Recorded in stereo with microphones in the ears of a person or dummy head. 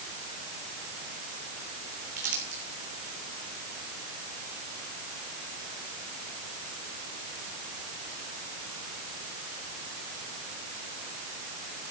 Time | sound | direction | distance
2.2 | crumpling | 50° right (ahead or behind) | 3.5 m